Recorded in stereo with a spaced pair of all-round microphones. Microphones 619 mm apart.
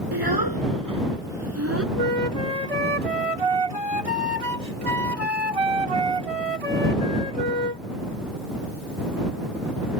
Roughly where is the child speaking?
Right.